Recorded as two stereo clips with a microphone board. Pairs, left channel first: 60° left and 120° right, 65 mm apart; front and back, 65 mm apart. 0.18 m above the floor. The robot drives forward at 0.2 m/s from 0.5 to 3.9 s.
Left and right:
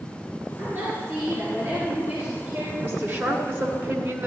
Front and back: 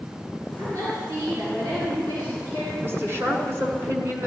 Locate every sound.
0.6 s a woman speaking: 165° right, 3.5 m
2.8 s a woman speaking: 150° right, 2 m; by 4.3 s 155° right, 2.5 m